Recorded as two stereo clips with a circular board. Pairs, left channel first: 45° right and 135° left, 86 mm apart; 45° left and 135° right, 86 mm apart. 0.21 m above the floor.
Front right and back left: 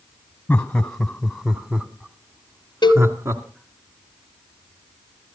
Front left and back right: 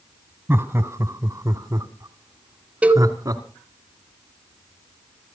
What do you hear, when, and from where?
0.5 s laughter: 100° right, 1.3 m; by 3.4 s 175° right, 2.5 m
2.8 s a cowbell: 65° right, 0.7 m